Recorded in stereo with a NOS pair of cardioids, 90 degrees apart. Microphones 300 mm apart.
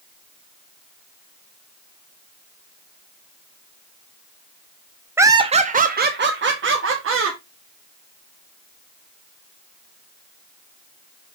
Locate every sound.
5.2 s laughter: 5° right, 0.6 m; by 7.4 s 45° right, 1.7 m